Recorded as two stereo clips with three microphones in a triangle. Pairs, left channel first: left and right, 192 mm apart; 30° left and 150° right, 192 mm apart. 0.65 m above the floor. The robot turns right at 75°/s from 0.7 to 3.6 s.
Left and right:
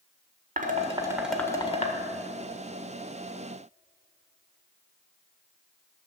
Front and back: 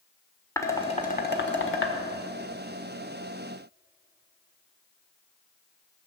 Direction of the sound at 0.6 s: 45° right.